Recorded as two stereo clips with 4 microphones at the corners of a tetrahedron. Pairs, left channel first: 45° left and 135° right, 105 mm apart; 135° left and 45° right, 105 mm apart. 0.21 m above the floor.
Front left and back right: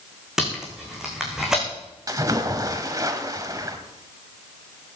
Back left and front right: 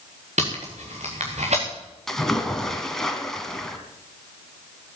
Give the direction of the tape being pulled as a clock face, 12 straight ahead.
2 o'clock.